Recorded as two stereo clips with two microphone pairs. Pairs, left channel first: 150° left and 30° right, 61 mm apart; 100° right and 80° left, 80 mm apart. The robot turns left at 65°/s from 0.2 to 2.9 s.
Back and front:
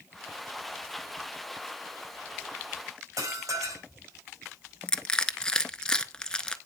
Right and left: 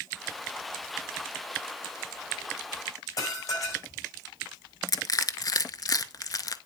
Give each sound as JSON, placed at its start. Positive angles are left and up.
{"t": 3.2, "sound": "dishes clattering", "azimuth_deg": -55, "distance_m": 5.5}
{"t": 4.9, "sound": "crushing", "azimuth_deg": -130, "distance_m": 0.6}